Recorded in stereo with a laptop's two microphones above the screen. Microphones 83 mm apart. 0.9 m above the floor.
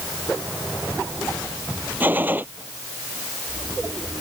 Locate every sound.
2.0 s a gunshot: 20° right (ahead or behind)